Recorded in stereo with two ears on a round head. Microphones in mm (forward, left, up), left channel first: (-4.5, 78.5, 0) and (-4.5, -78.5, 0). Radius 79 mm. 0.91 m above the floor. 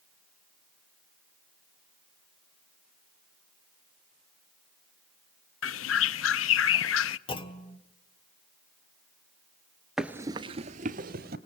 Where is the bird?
85° left, 0.5 m.